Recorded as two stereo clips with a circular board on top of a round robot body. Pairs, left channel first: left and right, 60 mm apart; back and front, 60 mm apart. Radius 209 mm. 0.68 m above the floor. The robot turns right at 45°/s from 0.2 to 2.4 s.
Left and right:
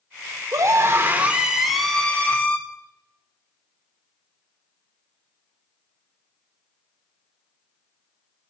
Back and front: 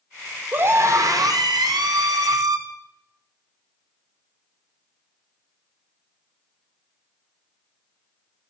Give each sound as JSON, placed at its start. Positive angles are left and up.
{"t": 0.5, "sound": "a scream", "azimuth_deg": -55, "distance_m": 0.9}